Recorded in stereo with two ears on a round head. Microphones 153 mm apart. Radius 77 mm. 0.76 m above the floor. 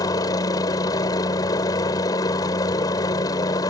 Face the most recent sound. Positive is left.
turn(degrees=20)  # may be behind; listen again after turning